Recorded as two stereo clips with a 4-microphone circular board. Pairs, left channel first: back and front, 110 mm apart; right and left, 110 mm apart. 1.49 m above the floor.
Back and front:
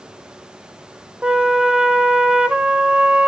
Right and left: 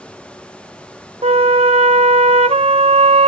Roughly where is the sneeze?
No sneeze in this recording.